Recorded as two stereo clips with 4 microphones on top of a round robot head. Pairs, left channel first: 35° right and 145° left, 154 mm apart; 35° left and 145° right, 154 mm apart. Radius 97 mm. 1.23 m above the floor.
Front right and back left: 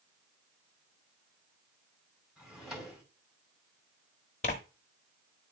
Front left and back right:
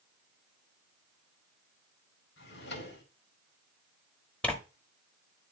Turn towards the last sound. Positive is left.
turn(degrees=-40)